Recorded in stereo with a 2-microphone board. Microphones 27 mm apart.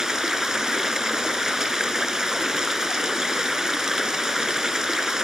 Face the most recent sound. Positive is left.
turn(degrees=-20)  # may be behind; listen again after turning